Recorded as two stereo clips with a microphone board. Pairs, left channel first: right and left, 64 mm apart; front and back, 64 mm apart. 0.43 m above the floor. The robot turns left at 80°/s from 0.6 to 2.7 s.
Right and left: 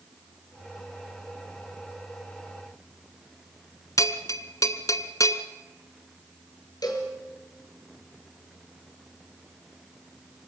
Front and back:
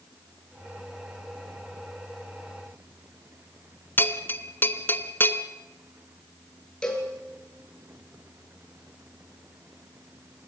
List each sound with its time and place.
4.0 s a bell: 60° right, 1.3 m
6.8 s a cowbell: 75° right, 5 m